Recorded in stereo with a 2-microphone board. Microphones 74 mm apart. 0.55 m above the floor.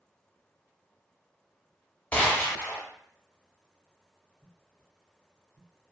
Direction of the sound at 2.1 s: 20° left (ahead or behind).